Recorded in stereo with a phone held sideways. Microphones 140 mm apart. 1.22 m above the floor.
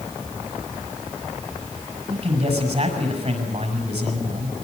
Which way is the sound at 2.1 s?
50° right (ahead or behind).